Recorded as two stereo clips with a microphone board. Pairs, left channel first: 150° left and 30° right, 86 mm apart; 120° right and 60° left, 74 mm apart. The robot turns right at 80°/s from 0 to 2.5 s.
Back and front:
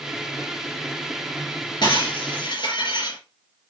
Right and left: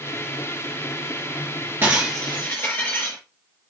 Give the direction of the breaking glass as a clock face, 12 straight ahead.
8 o'clock.